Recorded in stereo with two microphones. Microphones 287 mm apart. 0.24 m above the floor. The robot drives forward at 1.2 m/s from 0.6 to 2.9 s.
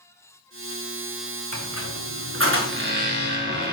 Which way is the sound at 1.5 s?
70° right (ahead or behind).